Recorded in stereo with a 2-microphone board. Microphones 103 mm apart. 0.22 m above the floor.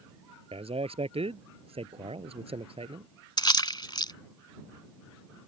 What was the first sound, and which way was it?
A man speaking, 75° right (ahead or behind).